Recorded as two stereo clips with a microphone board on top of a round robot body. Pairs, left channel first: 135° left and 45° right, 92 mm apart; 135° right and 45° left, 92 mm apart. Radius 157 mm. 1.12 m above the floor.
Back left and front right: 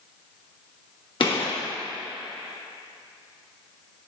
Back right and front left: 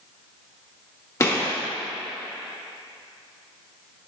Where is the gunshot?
165° left, 1.7 m.